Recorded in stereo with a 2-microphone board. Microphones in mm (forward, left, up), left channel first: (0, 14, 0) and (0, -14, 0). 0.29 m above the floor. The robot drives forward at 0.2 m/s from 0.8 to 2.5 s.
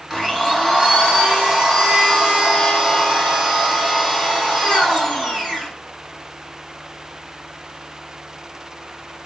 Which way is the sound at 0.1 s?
Centre (ahead or behind).